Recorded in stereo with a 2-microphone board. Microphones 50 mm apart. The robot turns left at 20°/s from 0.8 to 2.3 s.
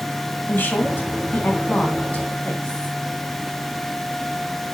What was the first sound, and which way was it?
A woman speaking, 45° left (ahead or behind).